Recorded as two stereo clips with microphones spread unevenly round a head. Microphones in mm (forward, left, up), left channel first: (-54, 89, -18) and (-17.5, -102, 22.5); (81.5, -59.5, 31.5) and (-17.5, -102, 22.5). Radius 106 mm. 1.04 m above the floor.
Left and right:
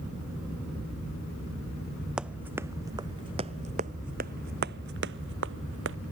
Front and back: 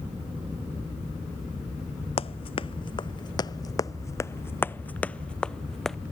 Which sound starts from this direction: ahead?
Running footsteps, at 2.2 s.